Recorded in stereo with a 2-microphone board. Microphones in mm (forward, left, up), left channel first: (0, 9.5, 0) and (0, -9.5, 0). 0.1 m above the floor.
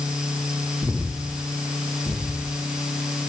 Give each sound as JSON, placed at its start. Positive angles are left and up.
{"t": 0.8, "sound": "breathing", "side_deg": -55, "distance_m": 6.5}